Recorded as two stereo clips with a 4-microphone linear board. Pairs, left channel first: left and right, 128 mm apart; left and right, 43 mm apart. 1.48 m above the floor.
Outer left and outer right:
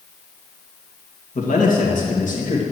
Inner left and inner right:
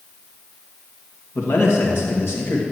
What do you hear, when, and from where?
1.4 s a man speaking: 80° left, 2 m